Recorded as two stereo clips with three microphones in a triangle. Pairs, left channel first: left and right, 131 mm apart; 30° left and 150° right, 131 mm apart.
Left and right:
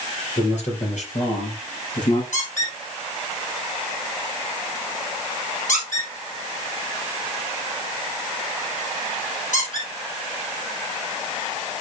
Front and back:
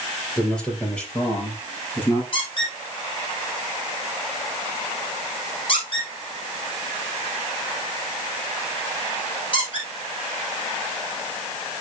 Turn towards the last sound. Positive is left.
turn(degrees=80)